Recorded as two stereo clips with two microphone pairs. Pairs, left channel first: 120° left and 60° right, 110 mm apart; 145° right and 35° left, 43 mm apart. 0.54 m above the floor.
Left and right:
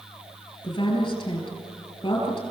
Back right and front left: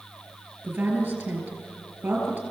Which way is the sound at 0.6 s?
75° left.